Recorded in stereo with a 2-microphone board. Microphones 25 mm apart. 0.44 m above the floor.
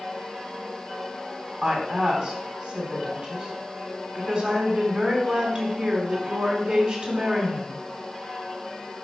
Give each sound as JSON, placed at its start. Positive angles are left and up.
{"t": 1.6, "sound": "a woman speaking", "side_deg": -35, "distance_m": 3.5}